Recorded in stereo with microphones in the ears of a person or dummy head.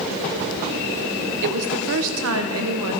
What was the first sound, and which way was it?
A woman speaking, 60° right (ahead or behind).